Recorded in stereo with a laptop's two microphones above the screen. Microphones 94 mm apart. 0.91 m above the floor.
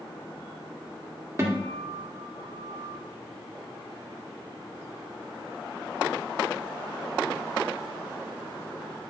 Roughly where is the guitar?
Right.